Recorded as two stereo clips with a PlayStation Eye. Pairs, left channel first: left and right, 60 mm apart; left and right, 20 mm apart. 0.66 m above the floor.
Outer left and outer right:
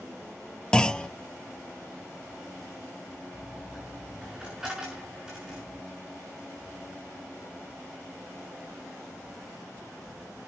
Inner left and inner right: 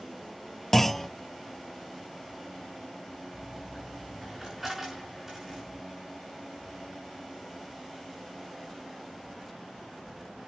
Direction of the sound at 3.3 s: 15° right (ahead or behind).